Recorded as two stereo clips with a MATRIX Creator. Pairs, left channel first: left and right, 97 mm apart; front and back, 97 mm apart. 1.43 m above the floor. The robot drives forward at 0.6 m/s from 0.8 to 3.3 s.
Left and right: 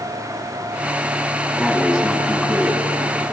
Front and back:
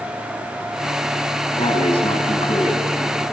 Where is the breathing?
10° right, 5 m.